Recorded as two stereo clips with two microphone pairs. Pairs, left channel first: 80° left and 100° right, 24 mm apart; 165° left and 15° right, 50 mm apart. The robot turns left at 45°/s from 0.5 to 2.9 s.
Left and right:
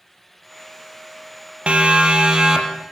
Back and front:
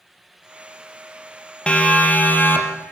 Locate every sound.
1.7 s a siren: 130° right, 3 m; by 2.9 s 165° right, 4 m